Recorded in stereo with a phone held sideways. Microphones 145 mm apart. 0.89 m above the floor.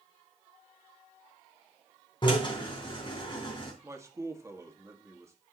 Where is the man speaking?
20° right (ahead or behind), 1.7 m.